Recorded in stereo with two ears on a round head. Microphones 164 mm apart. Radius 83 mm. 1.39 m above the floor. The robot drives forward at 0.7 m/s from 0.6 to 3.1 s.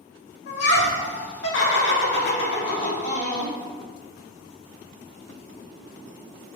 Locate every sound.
0.5 s laughter: 60° left (ahead or behind), 1.4 m; by 3.5 s 45° left (ahead or behind), 1.6 m